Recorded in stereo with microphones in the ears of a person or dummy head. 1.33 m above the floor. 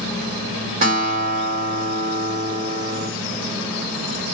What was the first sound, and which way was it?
A guitar, 40° right (ahead or behind).